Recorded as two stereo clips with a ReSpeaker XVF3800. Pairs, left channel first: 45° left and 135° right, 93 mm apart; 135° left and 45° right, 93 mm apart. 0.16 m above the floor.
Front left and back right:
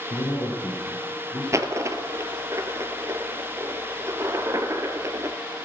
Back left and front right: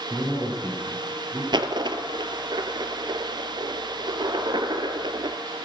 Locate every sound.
0.1 s a man speaking: 60° left, 4 m
1.5 s a dropped coin: 80° right, 0.9 m